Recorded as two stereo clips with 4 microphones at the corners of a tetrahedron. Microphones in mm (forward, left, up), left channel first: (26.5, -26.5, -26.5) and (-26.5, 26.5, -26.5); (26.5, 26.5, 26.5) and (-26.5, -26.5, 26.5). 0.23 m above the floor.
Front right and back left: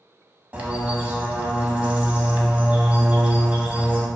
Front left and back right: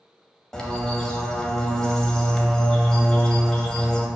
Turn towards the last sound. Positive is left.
turn(degrees=110)